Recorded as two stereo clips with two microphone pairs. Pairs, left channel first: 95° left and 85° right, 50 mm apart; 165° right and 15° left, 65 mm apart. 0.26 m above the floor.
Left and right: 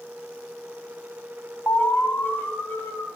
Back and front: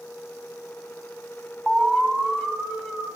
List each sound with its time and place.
1.7 s an alarm: 105° left, 0.9 m